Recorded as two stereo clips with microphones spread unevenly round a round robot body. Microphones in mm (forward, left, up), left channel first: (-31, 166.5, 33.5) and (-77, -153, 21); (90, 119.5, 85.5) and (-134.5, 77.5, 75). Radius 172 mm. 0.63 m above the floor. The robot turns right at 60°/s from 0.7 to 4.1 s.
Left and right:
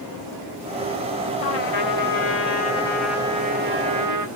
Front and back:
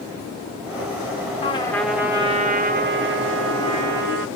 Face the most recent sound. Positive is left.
turn(degrees=-125)